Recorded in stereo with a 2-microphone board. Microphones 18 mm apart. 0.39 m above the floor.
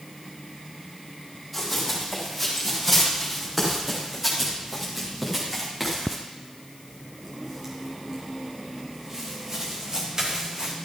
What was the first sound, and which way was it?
Running footsteps, centre (ahead or behind).